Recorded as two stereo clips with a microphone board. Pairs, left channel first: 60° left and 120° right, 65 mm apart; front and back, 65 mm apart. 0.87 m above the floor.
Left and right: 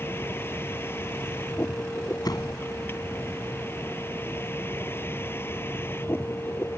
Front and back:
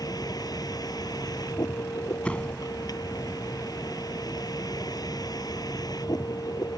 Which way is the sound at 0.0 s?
5° left.